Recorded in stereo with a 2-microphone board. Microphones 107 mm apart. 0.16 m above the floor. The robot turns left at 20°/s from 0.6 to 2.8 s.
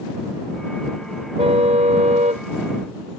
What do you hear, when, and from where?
1.4 s a car horn: 70° right (ahead or behind); by 2.5 s 90° right